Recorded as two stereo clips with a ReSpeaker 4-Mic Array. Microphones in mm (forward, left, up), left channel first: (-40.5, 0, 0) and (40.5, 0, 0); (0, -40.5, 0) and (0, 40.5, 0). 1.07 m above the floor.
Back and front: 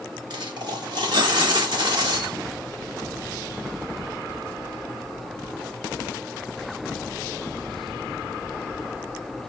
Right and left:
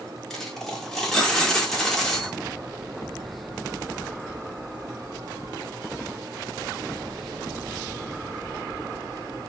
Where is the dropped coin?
5° right, 1.0 m.